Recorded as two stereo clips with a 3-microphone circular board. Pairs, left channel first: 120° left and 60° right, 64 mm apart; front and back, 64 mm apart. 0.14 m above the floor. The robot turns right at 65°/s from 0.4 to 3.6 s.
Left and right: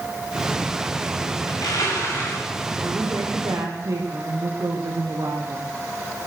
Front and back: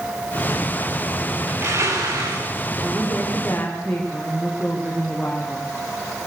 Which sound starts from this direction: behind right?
A woman speaking, at 2.8 s.